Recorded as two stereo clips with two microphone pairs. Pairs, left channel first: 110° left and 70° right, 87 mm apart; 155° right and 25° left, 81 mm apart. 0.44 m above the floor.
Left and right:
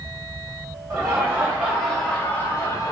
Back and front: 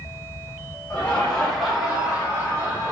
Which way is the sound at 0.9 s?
90° right.